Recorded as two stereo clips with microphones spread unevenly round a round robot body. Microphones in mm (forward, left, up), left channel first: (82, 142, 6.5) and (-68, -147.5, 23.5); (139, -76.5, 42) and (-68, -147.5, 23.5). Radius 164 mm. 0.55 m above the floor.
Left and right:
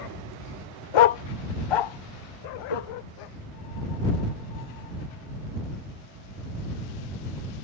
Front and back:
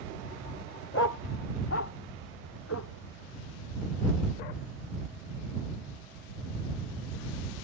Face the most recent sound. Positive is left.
turn(degrees=70)